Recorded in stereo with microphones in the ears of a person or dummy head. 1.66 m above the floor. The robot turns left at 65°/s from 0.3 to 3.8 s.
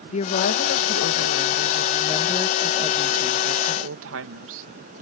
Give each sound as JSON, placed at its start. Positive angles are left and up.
{"t": 0.1, "sound": "a woman speaking", "azimuth_deg": 140}